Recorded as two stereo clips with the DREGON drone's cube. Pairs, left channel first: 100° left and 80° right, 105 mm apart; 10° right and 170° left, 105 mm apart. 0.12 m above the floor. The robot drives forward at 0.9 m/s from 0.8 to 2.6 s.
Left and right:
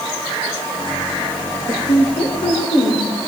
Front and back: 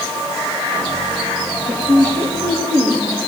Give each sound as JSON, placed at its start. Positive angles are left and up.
{"t": 1.7, "sound": "a woman speaking", "azimuth_deg": 125, "distance_m": 3.5}